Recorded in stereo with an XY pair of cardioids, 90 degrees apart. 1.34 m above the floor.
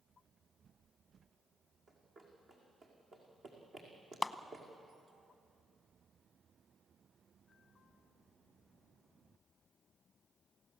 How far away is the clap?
About 0.9 m.